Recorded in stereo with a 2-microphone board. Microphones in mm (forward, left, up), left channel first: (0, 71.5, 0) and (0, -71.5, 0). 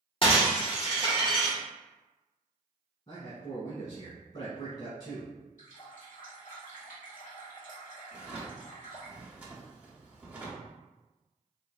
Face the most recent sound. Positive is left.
turn(degrees=-10)  # may be behind; listen again after turning